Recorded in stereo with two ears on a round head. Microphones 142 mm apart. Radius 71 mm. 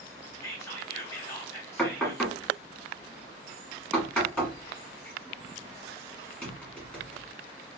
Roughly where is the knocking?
Centre.